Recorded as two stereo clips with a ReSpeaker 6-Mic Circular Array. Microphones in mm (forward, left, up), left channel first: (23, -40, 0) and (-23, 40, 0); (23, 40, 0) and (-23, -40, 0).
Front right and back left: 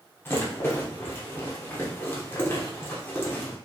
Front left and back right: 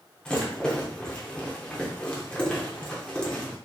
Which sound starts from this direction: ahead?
A rattle, at 0.2 s.